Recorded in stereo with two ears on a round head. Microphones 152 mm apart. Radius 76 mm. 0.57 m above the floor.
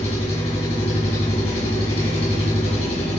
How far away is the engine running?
About 2.5 m.